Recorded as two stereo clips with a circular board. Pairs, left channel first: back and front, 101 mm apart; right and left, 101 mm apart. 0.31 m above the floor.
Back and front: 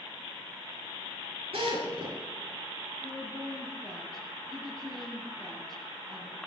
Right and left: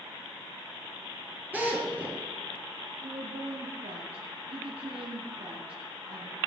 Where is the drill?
15° left, 6.5 m.